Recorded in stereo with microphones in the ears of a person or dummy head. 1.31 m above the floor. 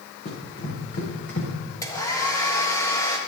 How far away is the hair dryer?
About 1.6 m.